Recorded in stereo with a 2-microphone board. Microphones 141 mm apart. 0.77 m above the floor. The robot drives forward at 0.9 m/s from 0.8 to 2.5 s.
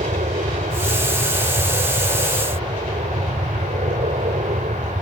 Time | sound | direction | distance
0.0 | an aircraft | 65° right (ahead or behind) | ?